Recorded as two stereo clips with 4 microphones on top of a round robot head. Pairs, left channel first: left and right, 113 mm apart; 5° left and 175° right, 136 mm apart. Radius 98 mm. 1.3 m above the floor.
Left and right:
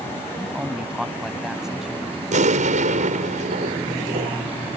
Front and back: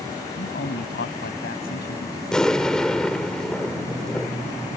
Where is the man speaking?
5° right.